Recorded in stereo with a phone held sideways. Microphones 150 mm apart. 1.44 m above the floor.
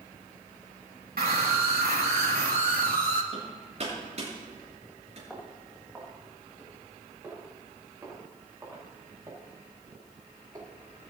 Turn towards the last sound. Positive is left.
turn(degrees=-25)  # may be behind; listen again after turning